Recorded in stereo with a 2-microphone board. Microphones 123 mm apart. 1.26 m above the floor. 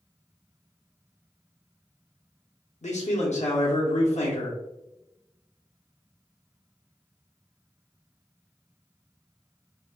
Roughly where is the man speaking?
Left.